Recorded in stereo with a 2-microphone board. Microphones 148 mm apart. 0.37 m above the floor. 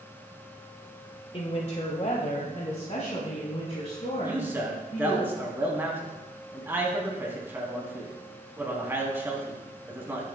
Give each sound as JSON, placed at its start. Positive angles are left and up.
{"t": 1.3, "sound": "a woman speaking", "side_deg": 40, "distance_m": 1.0}
{"t": 4.2, "sound": "a man speaking", "side_deg": -15, "distance_m": 3.0}